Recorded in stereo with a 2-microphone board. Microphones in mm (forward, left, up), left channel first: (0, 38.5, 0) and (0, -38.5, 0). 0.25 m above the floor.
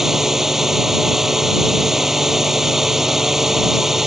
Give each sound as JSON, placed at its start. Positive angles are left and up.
{"t": 0.0, "sound": "a drone", "side_deg": -5}